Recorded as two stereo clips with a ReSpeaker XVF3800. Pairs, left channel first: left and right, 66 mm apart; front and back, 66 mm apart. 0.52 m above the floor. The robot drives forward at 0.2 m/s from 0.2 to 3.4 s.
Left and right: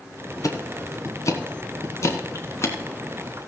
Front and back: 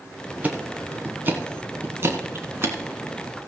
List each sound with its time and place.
0.4 s ticking: 115° left, 1.3 m; by 2.8 s 130° left, 1.6 m